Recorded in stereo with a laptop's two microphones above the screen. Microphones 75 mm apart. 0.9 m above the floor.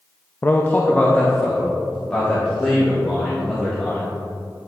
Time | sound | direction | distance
0.4 | a man speaking | 25° left (ahead or behind) | 0.5 m